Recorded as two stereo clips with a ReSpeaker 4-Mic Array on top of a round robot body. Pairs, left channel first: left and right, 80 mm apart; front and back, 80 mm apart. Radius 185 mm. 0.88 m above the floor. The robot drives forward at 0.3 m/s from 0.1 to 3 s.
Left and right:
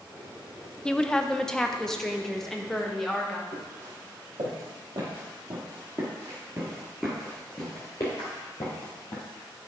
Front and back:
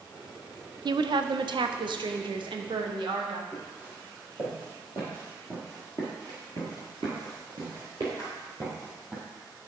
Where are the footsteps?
110° right, 2.5 m; by 9.2 s 115° left, 1.6 m.